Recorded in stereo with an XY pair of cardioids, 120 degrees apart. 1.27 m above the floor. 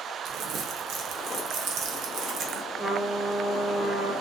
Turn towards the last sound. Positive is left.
turn(degrees=-10)